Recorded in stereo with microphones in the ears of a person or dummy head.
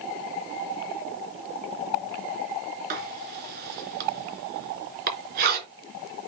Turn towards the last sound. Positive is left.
turn(degrees=-55)  # may be behind; listen again after turning